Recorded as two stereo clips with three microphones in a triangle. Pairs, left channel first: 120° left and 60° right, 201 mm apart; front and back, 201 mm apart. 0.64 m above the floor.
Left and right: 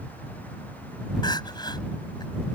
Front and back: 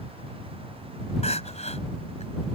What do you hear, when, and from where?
1.2 s crying: 55° left